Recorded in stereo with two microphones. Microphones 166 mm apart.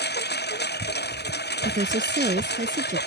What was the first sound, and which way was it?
A lawn mower, 85° left.